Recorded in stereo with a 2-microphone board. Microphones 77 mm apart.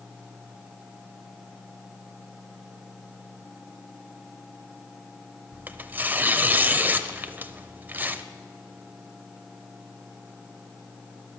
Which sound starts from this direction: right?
Tearing paper, at 5.5 s.